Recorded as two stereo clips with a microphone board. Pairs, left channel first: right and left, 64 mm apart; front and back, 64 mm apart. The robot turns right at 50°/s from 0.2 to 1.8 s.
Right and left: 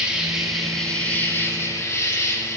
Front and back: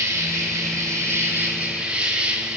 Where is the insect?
165° left, 3 m; by 2.6 s 115° right, 3 m.